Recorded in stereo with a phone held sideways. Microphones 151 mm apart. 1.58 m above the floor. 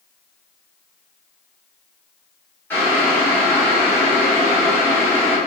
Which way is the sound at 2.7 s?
15° left (ahead or behind).